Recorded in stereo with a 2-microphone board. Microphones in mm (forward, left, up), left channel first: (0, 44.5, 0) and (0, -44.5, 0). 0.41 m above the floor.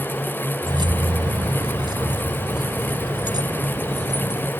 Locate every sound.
0.6 s keys jangling: 65° right (ahead or behind); by 4.5 s 50° right (ahead or behind)